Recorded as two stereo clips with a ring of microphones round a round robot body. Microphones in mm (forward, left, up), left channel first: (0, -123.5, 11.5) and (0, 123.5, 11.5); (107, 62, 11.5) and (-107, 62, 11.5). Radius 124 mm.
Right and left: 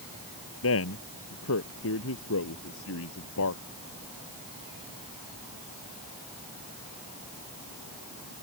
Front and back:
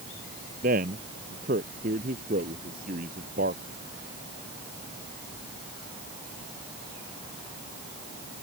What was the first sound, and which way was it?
A man speaking, 120° right.